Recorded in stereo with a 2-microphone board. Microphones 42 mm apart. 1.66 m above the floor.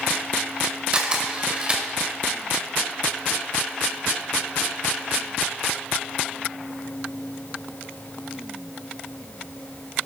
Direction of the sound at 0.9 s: 25° right (ahead or behind).